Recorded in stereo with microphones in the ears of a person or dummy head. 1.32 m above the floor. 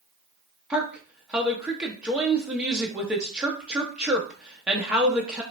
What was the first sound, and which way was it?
A woman speaking, 5° right (ahead or behind).